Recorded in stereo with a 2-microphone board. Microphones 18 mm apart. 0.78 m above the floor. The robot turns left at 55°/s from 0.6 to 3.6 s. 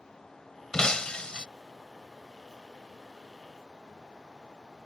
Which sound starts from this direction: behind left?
Breaking glass, at 0.7 s.